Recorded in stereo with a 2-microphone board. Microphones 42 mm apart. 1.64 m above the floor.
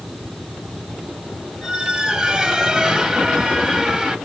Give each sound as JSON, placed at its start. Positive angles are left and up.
{"t": 1.6, "sound": "a squeak", "side_deg": -20, "distance_m": 1.2}